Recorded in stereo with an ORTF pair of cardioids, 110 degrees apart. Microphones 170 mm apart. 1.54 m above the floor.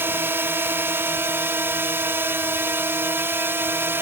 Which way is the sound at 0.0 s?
15° right.